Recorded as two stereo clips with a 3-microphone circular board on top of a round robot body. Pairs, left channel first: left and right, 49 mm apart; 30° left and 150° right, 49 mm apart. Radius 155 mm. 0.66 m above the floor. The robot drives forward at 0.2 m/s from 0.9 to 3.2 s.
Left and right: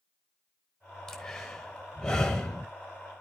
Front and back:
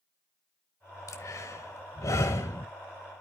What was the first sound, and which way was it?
Breathing, 15° left.